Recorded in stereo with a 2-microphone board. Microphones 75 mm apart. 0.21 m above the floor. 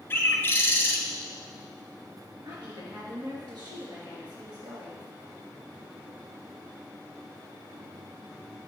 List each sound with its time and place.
0.1 s a bird: 30° left (ahead or behind), 0.8 m
2.5 s a woman speaking: 70° right (ahead or behind), 3.5 m